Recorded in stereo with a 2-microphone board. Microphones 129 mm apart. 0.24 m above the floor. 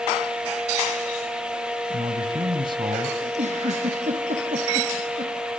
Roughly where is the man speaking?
Right.